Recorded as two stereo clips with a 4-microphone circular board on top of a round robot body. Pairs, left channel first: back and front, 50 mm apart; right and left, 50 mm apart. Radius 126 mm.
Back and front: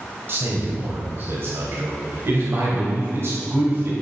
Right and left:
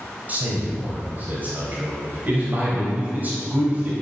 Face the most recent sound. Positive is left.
turn(degrees=35)